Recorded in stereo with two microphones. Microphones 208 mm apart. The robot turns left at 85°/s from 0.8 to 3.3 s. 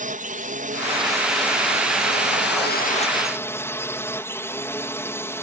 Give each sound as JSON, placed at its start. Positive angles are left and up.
{"t": 0.0, "sound": "a drone", "azimuth_deg": -135}